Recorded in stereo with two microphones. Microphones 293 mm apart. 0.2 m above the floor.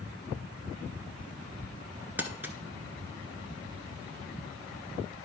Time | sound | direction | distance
2.2 | crumpling | 5° right (ahead or behind) | 0.9 m